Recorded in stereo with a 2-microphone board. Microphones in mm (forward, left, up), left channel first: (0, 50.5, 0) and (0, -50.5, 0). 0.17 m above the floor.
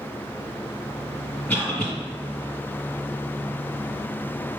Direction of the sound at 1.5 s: 15° left (ahead or behind).